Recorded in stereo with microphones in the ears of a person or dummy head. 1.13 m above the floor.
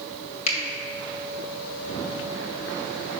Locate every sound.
0.5 s a finger snap: 35° left (ahead or behind), 2 m